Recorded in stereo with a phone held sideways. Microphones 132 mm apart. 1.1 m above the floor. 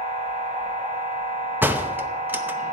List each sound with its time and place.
0.0 s a machine running: 75° right (ahead or behind), 4 m
1.6 s a door slam: 15° right (ahead or behind), 0.7 m